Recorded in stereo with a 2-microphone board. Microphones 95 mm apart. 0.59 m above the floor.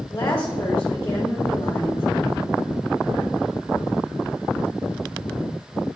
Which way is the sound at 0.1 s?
30° left (ahead or behind).